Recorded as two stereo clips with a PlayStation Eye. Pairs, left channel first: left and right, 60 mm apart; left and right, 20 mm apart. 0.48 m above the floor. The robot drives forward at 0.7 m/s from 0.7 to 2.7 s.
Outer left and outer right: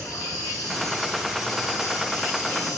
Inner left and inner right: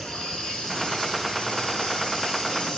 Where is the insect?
70° left (ahead or behind), 7 m; by 2.8 s 65° left (ahead or behind), 7.5 m.